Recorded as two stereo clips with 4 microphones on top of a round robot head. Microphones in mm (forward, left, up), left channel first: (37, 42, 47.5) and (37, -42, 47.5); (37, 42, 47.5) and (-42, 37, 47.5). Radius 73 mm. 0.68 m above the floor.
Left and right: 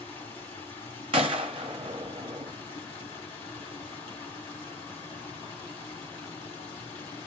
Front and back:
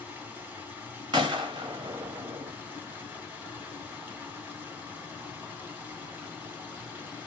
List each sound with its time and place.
0.0 s running water: 115° left, 2.5 m
1.1 s a gunshot: 125° right, 0.6 m